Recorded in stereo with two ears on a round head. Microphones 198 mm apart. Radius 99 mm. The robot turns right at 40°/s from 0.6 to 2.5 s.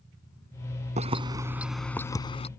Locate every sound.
1.0 s keys jangling: 30° right (ahead or behind); by 2.5 s 30° left (ahead or behind)